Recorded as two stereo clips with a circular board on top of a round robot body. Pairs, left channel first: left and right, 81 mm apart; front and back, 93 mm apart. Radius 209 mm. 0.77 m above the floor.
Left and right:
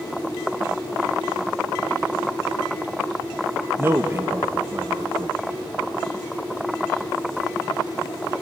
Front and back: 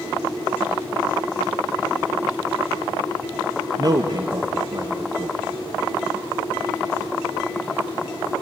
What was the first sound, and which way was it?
A man speaking, 145° right.